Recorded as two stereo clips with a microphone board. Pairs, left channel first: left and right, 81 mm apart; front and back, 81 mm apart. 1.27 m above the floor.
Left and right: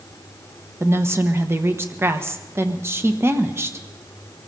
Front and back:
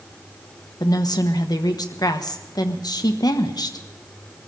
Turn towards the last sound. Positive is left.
turn(degrees=-35)